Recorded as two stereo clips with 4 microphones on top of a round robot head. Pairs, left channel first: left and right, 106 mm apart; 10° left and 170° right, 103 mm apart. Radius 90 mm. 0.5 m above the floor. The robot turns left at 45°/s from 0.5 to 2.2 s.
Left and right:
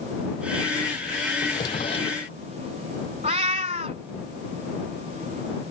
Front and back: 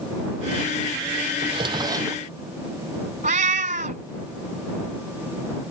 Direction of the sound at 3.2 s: 140° right.